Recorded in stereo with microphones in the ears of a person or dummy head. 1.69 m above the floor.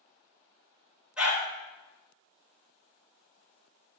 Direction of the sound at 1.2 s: 5° right (ahead or behind).